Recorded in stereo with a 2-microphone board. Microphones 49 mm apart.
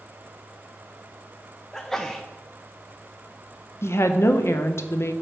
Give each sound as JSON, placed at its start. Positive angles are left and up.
{"t": 1.7, "sound": "a sneeze", "side_deg": 10, "distance_m": 0.5}
{"t": 3.8, "sound": "a woman speaking", "side_deg": 70, "distance_m": 0.7}